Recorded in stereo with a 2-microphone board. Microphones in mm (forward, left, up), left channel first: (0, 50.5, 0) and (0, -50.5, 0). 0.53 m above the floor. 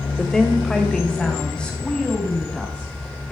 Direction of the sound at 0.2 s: 5° left (ahead or behind).